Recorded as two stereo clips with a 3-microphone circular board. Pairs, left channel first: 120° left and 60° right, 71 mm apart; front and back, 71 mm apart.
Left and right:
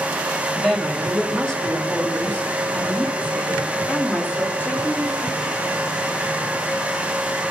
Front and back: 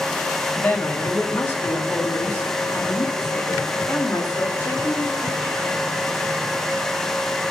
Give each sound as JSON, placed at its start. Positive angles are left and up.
{"t": 0.6, "sound": "a woman speaking", "azimuth_deg": 25, "distance_m": 1.4}